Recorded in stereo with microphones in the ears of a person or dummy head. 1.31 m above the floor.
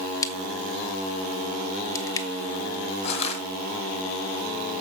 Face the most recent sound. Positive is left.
turn(degrees=30)  # may be behind; listen again after turning